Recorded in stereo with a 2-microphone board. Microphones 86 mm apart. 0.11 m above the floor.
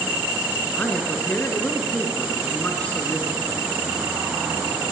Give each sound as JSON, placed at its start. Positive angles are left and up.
{"t": 0.8, "sound": "a man speaking", "side_deg": 15, "distance_m": 1.1}